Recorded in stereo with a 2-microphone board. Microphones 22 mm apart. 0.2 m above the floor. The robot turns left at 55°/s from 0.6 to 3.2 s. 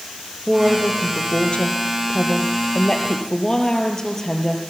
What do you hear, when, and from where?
0.5 s a woman speaking: 170° left, 4 m; by 4.6 s 25° left, 4 m